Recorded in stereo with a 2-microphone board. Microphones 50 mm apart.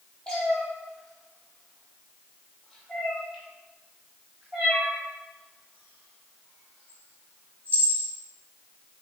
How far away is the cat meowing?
About 3.5 m.